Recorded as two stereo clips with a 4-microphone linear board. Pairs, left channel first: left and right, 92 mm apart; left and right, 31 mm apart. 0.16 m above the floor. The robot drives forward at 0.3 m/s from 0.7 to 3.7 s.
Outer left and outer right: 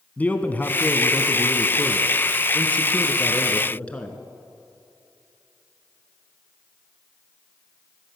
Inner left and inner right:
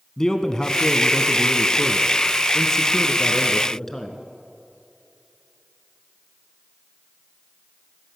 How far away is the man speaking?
About 1.1 m.